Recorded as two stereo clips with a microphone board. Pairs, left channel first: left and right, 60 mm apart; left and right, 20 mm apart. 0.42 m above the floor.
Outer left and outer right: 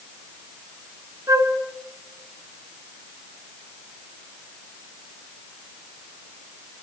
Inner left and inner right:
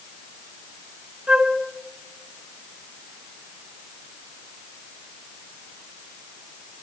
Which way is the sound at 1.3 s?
65° right (ahead or behind).